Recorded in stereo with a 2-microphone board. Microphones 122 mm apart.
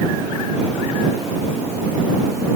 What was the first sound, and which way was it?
Only background noise.